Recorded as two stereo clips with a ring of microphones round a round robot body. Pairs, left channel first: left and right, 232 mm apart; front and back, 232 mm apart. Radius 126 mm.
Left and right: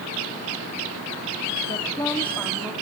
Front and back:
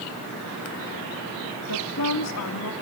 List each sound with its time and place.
1.6 s a woman speaking: 20° left, 1.8 m; by 2.7 s 5° right, 2.5 m